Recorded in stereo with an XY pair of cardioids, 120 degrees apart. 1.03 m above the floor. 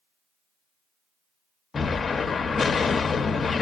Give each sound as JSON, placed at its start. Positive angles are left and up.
{"t": 1.7, "sound": "an explosion", "azimuth_deg": 30, "distance_m": 0.6}